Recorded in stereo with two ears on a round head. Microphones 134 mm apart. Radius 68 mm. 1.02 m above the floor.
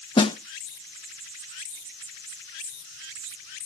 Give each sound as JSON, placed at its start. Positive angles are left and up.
{"t": 0.2, "sound": "a snare drum", "side_deg": 30, "distance_m": 0.5}